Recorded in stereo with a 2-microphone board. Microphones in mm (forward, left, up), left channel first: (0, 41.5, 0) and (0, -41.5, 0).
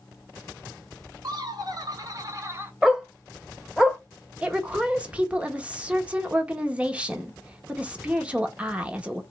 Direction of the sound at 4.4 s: 15° right (ahead or behind).